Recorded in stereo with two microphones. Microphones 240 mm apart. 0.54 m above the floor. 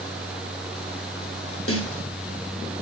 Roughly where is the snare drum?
Left.